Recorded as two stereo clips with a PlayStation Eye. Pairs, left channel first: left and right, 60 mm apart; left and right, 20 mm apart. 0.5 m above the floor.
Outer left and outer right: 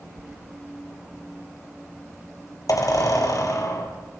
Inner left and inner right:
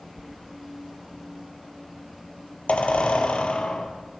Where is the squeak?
70° left (ahead or behind), 3 m.